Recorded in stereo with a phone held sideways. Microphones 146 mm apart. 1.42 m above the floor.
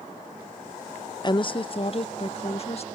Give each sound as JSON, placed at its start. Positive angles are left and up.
{"t": 1.2, "sound": "a woman speaking", "side_deg": 30}